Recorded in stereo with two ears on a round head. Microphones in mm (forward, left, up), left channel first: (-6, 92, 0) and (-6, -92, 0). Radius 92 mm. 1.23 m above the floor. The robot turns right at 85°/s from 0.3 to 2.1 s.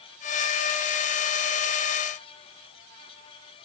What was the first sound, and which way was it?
Only background noise.